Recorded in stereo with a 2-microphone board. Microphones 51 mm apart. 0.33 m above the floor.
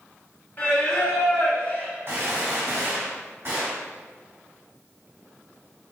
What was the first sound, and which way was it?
Singing, 40° left (ahead or behind).